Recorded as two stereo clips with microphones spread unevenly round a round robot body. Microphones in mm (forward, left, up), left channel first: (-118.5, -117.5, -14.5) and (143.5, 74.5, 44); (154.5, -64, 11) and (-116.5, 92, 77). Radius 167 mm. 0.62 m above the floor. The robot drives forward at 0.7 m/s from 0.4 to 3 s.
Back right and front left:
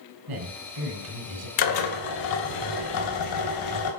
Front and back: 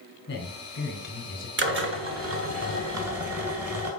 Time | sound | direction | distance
0.3 | a man speaking | 20° left | 4 m
1.6 | a drill | 150° right | 1.9 m